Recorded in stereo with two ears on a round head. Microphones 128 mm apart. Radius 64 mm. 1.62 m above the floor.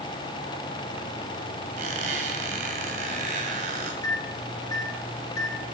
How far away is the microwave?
About 2 m.